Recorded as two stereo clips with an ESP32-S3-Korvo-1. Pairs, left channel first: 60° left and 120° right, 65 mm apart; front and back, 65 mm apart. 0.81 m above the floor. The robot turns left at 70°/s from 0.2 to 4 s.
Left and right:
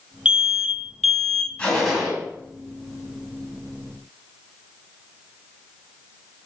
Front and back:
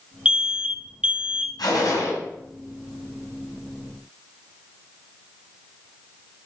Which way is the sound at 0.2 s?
150° right.